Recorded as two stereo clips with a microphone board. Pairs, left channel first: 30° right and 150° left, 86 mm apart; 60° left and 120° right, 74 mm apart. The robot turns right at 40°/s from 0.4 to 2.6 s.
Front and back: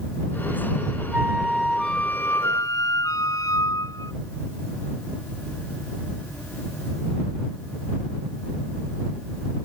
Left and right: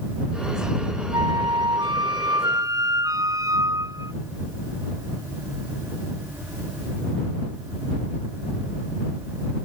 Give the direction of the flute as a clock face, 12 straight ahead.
5 o'clock.